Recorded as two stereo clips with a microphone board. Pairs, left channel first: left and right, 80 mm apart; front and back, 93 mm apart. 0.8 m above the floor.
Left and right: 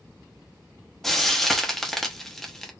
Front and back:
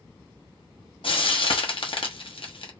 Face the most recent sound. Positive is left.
turn(degrees=5)